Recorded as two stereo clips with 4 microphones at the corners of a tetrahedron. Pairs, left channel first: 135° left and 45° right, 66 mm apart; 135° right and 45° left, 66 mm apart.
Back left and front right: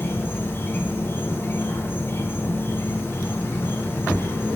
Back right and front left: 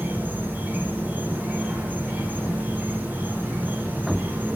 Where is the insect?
95° left, 0.9 m.